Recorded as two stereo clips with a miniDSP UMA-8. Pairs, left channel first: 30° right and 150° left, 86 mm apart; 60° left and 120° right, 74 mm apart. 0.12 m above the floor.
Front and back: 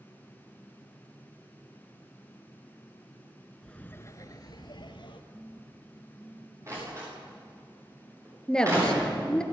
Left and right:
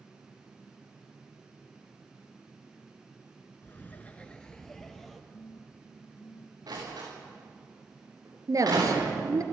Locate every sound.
3.6 s laughter: 45° left, 1.2 m; by 5.2 s 30° right, 2.5 m
5.3 s a phone buzzing: 70° left, 2.5 m
6.7 s a door slam: 155° right, 8.5 m
8.5 s a woman speaking: 110° right, 2.0 m